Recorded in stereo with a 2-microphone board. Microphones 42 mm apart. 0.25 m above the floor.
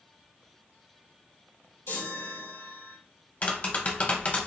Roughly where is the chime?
Left.